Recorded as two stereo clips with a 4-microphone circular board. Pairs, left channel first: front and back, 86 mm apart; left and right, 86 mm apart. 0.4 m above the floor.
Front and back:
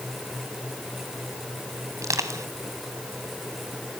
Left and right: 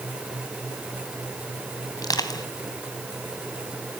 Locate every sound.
2.0 s crushing: 130° left, 2.5 m